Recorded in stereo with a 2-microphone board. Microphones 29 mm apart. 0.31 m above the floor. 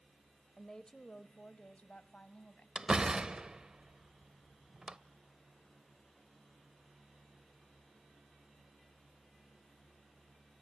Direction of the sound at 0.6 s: 20° left (ahead or behind).